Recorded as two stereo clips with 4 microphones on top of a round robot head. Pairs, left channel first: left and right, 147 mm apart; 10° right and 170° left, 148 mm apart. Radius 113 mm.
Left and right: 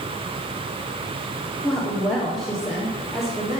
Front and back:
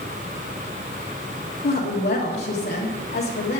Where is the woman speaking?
Straight ahead, 1.8 m.